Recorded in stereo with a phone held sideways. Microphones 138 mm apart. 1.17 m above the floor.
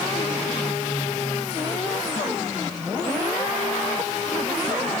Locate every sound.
Only background noise.